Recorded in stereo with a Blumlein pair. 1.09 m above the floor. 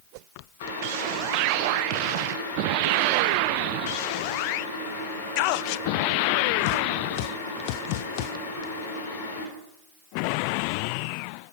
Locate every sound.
0.6 s boiling: 60° left, 2.5 m